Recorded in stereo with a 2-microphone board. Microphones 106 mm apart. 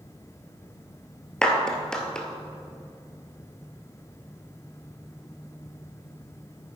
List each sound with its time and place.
1.4 s a clap: 5° left (ahead or behind), 1.4 m